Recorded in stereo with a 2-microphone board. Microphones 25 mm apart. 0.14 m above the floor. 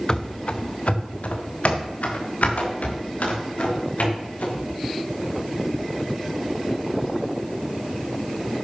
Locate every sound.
0.1 s running footsteps: 30° left (ahead or behind), 1.1 m; by 4.6 s 80° left, 7 m